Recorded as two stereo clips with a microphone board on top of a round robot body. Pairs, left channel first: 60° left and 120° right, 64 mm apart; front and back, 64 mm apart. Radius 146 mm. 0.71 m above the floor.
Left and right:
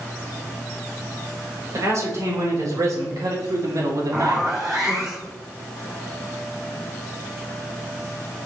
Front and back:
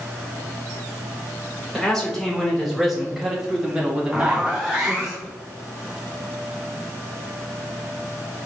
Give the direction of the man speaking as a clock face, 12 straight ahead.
3 o'clock.